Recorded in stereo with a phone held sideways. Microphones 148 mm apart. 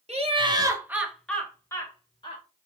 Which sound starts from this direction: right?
Laughter, at 0.1 s.